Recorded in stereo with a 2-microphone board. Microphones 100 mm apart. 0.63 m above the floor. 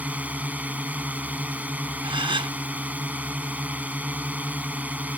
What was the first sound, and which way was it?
A drone, 15° right (ahead or behind).